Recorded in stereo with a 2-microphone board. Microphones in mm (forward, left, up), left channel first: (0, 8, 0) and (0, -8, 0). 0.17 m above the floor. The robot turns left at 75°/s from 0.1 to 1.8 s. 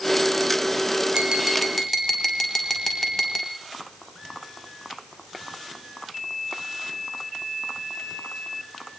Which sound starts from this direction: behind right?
Tapping, at 1.1 s.